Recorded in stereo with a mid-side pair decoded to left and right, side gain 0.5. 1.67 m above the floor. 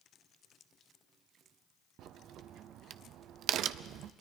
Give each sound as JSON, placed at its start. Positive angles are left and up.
{"t": 2.0, "sound": "a crack", "azimuth_deg": -70, "distance_m": 0.7}